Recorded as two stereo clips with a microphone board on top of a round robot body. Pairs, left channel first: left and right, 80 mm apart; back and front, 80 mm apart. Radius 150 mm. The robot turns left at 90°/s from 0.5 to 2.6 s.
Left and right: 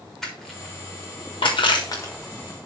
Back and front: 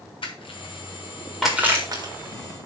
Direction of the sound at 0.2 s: 175° left.